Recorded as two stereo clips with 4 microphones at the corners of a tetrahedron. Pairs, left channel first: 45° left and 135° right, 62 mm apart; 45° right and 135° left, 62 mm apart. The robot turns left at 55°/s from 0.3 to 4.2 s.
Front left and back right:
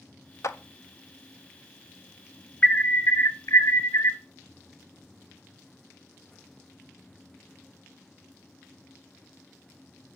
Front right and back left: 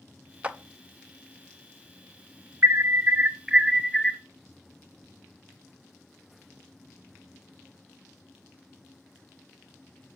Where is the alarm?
100° left, 0.7 m; by 4.2 s 15° left, 0.7 m.